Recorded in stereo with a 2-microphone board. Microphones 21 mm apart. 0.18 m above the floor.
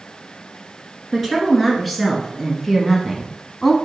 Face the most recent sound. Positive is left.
turn(degrees=15)  # may be behind; listen again after turning